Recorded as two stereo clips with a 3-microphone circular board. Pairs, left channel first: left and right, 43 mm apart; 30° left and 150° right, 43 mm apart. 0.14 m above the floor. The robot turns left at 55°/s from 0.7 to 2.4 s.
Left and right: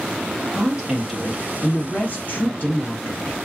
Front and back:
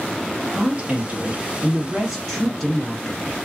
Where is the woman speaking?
160° right, 1.5 m; by 3.4 s 105° left, 1.5 m.